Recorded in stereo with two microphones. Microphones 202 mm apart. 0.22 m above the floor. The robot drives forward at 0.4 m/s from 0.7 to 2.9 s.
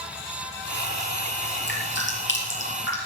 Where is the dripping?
75° left (ahead or behind), 4 m.